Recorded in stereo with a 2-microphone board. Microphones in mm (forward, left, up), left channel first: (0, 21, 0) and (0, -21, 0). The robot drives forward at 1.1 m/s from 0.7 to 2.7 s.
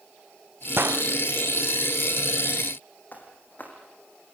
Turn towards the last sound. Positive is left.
turn(degrees=40)  # may be behind; listen again after turning